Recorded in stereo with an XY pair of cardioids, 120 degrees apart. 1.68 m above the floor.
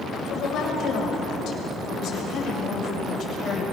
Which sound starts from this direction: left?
A woman speaking, at 0.3 s.